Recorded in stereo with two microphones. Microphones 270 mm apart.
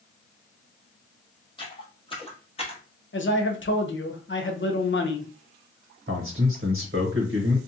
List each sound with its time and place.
1.6 s footsteps: 20° left (ahead or behind), 1.6 m; by 2.8 s 25° left (ahead or behind), 1.2 m
3.1 s a man speaking: 45° left (ahead or behind), 0.6 m
6.1 s a man speaking: 45° right (ahead or behind), 0.8 m